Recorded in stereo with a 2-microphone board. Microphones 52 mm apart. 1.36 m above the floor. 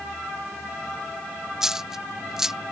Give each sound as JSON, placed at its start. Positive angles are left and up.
{"t": 1.6, "sound": "a dropped coin", "side_deg": -10}